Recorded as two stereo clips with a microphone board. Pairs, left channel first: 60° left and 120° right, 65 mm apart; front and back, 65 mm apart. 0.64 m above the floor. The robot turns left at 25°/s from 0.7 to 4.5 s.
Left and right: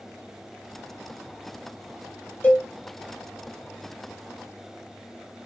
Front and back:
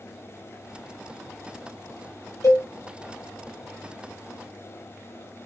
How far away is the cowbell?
About 0.8 m.